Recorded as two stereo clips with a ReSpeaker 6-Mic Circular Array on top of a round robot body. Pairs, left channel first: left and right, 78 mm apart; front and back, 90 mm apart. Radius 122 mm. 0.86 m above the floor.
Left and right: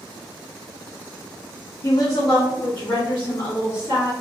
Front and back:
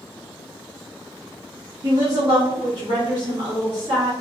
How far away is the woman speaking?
About 0.7 m.